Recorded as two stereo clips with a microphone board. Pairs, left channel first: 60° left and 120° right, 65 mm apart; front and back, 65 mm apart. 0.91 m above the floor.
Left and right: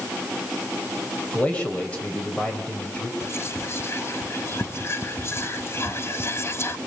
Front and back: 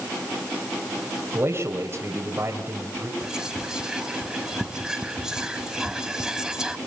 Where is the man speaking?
130° left, 3.5 m.